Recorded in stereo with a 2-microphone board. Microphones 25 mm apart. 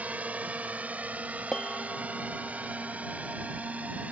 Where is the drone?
80° right; by 4.1 s 75° right (ahead or behind).